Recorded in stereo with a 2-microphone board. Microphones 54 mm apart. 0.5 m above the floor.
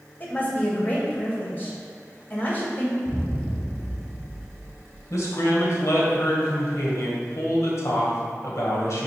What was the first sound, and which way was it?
A woman speaking, 40° left (ahead or behind).